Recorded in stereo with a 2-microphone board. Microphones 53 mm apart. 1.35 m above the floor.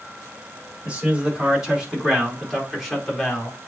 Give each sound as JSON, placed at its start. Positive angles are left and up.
{"t": 0.8, "sound": "a man speaking", "side_deg": -20, "distance_m": 4.5}